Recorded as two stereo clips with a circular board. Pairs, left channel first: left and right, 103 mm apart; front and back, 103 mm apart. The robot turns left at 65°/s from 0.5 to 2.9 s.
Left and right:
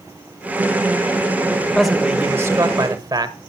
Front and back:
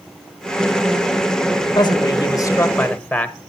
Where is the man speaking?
5° left, 1.2 m; by 3.4 s 70° right, 1.2 m.